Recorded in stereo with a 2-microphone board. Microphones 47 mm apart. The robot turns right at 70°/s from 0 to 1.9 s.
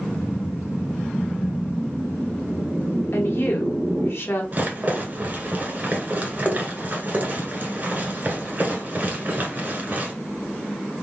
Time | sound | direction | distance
0.2 | a whoosh | 80° left | 0.9 m
3.1 | a woman speaking | 55° left (ahead or behind) | 1.2 m
4.5 | a rattle | 35° right (ahead or behind) | 1.6 m